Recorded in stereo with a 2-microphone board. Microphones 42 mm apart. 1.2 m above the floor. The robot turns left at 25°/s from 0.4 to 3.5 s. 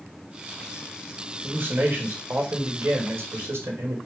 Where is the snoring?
I don't hear snoring.